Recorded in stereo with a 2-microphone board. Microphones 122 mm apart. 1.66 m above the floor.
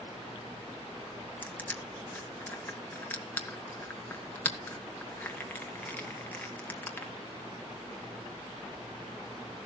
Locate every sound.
1.4 s crushing: 15° left (ahead or behind), 1.4 m